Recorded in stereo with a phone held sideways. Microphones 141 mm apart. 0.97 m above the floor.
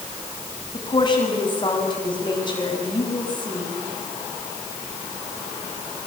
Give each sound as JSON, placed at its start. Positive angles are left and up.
{"t": 0.7, "sound": "a woman speaking", "side_deg": 35, "distance_m": 7.0}